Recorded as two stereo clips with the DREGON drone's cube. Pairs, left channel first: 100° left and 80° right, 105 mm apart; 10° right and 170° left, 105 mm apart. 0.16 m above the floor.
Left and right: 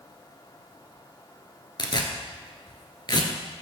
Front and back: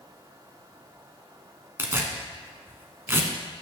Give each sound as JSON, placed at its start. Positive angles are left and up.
{"t": 1.8, "sound": "tearing paper", "azimuth_deg": 110, "distance_m": 1.3}